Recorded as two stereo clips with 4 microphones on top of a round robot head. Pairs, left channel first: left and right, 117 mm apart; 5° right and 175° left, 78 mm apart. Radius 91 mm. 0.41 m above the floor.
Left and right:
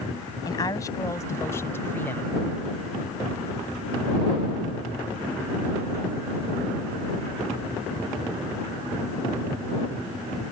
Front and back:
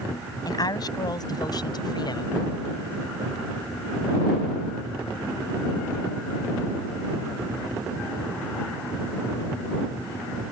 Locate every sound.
0.5 s a woman speaking: 30° left; by 2.4 s 15° left